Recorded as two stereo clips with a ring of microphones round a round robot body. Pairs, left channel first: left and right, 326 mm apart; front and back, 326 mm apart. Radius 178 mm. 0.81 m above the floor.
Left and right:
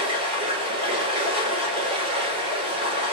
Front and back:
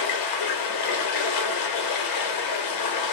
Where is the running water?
15° right, 0.9 m.